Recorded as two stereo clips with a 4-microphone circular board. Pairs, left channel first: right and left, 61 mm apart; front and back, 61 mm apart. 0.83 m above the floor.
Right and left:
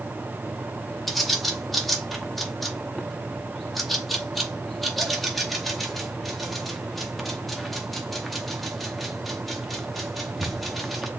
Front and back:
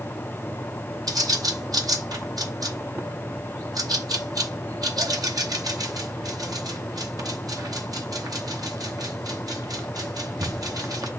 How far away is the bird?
About 0.7 m.